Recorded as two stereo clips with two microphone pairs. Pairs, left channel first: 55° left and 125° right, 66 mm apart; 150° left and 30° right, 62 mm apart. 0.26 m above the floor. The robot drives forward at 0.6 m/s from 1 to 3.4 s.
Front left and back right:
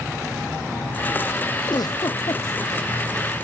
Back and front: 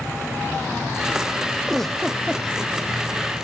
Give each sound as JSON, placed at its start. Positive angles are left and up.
{"t": 1.7, "sound": "a giggle", "azimuth_deg": 65}